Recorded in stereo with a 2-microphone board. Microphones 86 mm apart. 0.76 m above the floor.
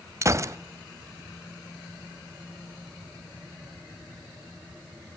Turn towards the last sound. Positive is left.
turn(degrees=-35)  # may be behind; listen again after turning